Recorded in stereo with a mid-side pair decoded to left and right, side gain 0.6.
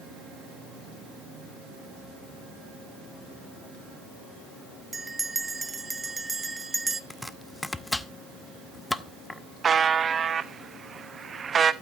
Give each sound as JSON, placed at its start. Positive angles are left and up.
{"t": 4.9, "sound": "a bell", "azimuth_deg": -15, "distance_m": 0.9}
{"t": 7.1, "sound": "chopping", "azimuth_deg": 15, "distance_m": 0.7}
{"t": 9.6, "sound": "a buzzer", "azimuth_deg": -30, "distance_m": 0.8}